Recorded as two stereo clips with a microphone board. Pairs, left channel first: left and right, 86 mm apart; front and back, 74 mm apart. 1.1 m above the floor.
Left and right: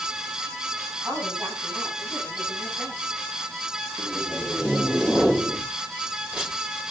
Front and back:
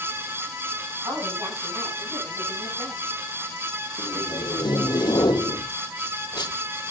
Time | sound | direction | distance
1.0 | a woman speaking | 160° right | 9.5 m
4.0 | tape being pulled | 10° right | 2.5 m